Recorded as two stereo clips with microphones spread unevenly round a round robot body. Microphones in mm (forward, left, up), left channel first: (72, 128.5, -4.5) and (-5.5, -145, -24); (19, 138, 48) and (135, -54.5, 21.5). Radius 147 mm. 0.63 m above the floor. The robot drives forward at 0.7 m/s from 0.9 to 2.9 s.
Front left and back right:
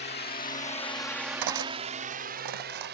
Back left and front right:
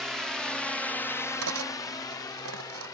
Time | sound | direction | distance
0.0 | a drone | 25° left | ?
1.4 | cutlery clinking | 100° right | ?